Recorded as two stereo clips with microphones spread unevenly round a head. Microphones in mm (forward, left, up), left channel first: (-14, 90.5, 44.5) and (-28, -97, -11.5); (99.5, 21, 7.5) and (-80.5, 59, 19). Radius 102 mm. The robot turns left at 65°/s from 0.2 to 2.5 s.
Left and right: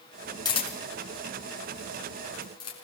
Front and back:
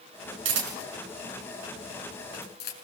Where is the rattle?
I don't hear a rattle.